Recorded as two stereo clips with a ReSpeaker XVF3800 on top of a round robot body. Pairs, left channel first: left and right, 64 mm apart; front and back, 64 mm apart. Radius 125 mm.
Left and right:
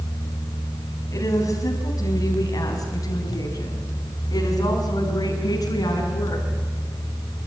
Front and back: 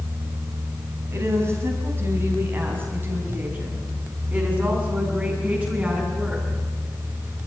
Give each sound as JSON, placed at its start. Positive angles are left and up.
{"t": 1.1, "sound": "a woman speaking", "azimuth_deg": 130, "distance_m": 5.0}